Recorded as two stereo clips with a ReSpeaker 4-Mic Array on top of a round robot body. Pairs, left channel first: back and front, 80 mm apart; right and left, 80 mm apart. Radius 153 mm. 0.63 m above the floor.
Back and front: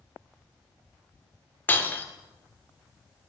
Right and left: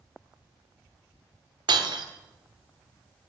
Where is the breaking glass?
115° left, 1.2 m.